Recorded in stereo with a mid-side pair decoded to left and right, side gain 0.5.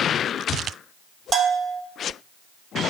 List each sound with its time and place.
1.3 s a bell: 40° right, 0.8 m